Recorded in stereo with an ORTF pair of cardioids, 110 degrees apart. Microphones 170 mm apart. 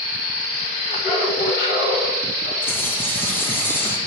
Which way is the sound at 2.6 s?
10° left.